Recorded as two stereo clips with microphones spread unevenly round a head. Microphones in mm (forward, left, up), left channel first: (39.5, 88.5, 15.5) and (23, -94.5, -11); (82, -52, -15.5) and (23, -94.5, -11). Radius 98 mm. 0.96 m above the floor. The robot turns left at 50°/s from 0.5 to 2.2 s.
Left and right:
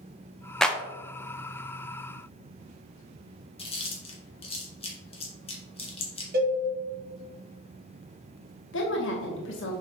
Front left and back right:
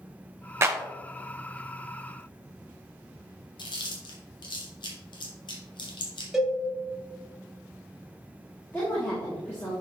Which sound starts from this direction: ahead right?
A cowbell, at 6.3 s.